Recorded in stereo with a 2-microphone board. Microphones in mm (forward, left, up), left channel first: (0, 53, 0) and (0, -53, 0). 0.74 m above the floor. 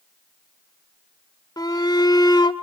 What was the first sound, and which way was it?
A shout, 40° left (ahead or behind).